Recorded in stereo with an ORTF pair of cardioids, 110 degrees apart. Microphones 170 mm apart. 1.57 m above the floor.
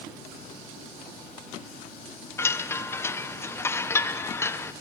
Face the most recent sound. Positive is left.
turn(degrees=15)